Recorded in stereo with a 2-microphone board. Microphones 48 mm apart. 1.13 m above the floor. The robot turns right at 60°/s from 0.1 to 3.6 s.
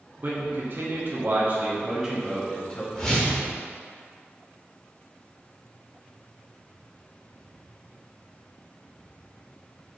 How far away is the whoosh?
About 1.1 m.